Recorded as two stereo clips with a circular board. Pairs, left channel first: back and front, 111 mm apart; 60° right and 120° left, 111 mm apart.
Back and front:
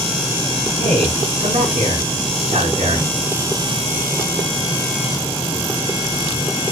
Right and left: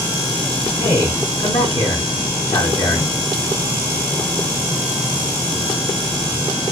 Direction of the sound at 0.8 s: 10° right.